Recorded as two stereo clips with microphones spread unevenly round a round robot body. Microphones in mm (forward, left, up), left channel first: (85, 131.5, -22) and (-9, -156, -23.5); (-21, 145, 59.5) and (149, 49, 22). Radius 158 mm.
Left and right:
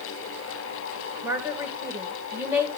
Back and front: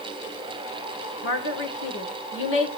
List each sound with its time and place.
1.2 s a woman speaking: 170° left, 1.9 m